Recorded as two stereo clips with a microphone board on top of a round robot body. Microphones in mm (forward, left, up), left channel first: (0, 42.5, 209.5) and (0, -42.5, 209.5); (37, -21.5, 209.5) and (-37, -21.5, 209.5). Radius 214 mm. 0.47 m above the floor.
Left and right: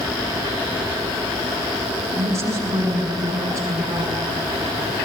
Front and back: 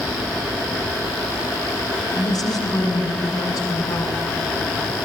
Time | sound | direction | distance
2.1 | a woman speaking | 30° right | 6 m